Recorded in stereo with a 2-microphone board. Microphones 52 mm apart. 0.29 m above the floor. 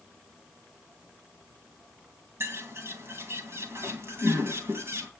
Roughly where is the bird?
Right.